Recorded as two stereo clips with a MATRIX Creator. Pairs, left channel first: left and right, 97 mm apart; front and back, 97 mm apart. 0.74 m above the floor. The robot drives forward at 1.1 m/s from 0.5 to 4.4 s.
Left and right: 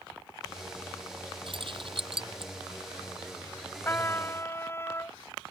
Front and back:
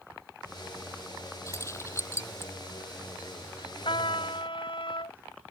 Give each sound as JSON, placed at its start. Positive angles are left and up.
{"t": 1.5, "sound": "keys jangling", "azimuth_deg": -60}
{"t": 3.9, "sound": "a trumpet", "azimuth_deg": 25}